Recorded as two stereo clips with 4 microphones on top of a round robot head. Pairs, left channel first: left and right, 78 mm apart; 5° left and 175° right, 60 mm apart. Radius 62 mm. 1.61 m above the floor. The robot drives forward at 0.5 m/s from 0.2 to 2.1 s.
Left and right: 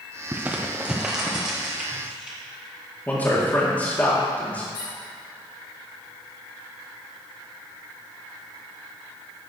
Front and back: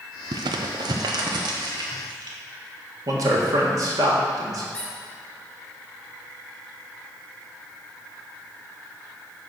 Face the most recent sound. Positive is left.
turn(degrees=80)